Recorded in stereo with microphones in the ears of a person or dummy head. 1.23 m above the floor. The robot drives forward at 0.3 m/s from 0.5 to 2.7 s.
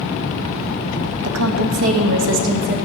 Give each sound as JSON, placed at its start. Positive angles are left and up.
{"t": 1.2, "sound": "a woman speaking", "side_deg": -85, "distance_m": 0.7}